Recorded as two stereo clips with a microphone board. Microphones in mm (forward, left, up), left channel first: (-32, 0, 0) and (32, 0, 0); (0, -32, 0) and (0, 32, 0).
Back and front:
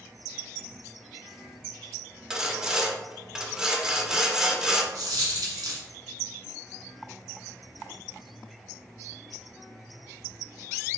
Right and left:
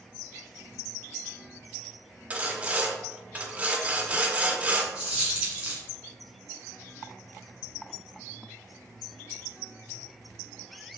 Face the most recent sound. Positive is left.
turn(degrees=20)